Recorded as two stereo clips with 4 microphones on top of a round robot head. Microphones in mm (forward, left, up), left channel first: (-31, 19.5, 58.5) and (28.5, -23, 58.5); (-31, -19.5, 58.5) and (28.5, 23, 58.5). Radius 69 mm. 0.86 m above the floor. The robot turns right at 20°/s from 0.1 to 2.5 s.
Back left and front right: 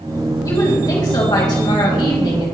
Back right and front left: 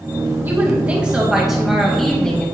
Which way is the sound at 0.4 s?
100° left.